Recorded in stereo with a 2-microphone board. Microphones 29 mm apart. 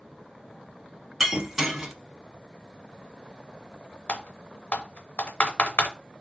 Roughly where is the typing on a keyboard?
Left.